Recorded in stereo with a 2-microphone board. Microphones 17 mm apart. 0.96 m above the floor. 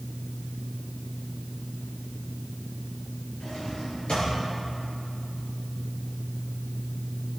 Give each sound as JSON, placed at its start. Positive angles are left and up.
{"t": 3.4, "sound": "a drawer", "side_deg": 80, "distance_m": 5.0}